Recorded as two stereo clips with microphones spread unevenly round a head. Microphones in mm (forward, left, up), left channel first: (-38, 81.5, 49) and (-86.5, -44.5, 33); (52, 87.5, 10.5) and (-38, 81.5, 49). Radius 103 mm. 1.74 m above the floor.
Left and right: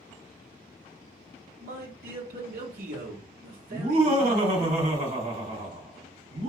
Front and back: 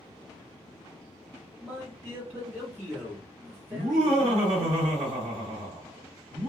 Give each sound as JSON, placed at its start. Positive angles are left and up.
{"t": 1.6, "sound": "a man speaking", "azimuth_deg": -85, "distance_m": 0.9}
{"t": 3.7, "sound": "laughter", "azimuth_deg": -145, "distance_m": 1.4}